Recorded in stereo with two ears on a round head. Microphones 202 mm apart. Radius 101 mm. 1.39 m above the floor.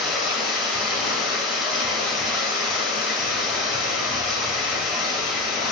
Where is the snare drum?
I don't hear a snare drum.